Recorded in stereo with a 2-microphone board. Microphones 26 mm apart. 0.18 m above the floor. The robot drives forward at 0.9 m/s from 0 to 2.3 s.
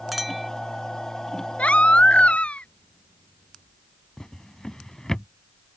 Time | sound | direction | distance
0.1 | a clink | 5° right (ahead or behind) | ?
1.6 | a baby crying | 65° left (ahead or behind) | ?
4.2 | a drawer | 25° left (ahead or behind) | ?